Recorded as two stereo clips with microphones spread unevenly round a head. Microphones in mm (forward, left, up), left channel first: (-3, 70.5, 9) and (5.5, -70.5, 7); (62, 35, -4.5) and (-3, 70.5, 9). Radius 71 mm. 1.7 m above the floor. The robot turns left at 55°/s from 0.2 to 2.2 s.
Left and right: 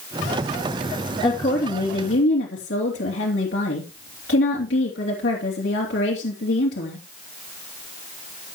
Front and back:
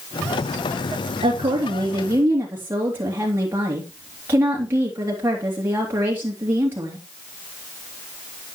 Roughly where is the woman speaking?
Behind left.